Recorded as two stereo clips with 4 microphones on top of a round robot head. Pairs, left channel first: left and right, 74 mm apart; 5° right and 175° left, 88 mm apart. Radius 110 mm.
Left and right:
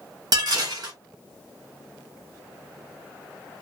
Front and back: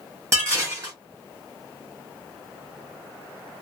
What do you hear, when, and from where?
0.3 s dishes clattering: 120° right, 1.1 m